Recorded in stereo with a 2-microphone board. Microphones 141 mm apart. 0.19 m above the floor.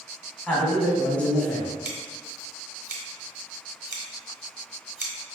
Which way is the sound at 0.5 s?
10° left (ahead or behind).